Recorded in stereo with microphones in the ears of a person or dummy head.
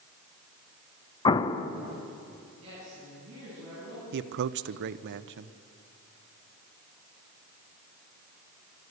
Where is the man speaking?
65° right (ahead or behind), 0.7 m.